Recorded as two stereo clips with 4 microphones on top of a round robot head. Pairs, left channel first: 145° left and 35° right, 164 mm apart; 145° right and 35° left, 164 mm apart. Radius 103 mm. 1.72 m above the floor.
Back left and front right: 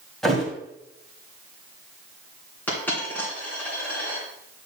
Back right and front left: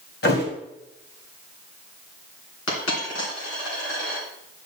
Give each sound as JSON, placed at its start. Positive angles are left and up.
{"t": 0.2, "sound": "a thud", "azimuth_deg": -130, "distance_m": 2.0}
{"t": 2.7, "sound": "a dropped coin", "azimuth_deg": -140, "distance_m": 3.0}